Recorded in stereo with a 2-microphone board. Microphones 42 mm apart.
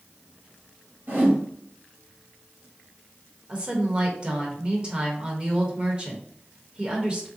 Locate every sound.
1.1 s a whoosh: 55° right (ahead or behind), 2.0 m
3.5 s a woman speaking: 25° right (ahead or behind), 0.9 m